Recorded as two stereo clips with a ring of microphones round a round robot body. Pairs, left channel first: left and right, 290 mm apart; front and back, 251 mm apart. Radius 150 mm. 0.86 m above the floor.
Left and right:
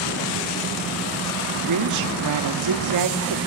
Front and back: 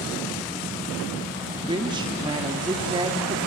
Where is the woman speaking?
105° right, 2 m.